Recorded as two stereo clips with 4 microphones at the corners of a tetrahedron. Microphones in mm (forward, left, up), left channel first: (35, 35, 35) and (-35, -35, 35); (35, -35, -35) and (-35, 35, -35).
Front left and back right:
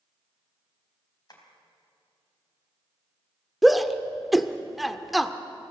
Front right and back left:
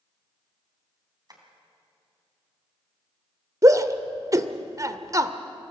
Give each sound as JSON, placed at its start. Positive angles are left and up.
{"t": 1.3, "sound": "tapping", "azimuth_deg": 90, "distance_m": 3.0}
{"t": 3.6, "sound": "a shout", "azimuth_deg": 135, "distance_m": 0.9}